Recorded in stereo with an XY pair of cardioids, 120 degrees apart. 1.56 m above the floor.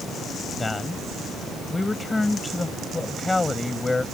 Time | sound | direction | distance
0.6 | a man speaking | 20° left | ?